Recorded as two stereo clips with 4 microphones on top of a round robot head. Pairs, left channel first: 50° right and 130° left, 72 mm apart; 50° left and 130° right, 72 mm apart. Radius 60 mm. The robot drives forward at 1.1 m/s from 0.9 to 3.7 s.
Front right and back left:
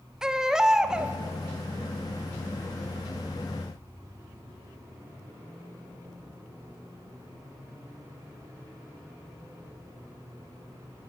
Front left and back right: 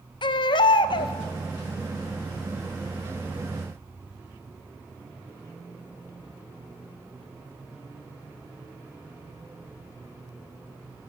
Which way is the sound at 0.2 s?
50° left.